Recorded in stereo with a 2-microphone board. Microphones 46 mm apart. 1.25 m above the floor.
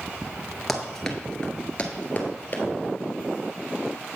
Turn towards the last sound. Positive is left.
turn(degrees=40)  # may be behind; listen again after turning